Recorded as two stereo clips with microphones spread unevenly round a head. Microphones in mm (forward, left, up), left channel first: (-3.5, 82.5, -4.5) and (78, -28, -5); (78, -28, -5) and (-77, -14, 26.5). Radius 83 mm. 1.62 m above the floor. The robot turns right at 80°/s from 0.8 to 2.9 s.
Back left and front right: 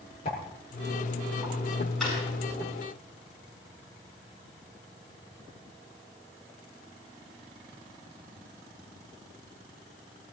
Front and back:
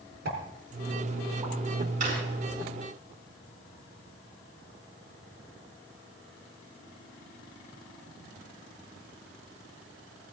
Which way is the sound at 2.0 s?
145° right.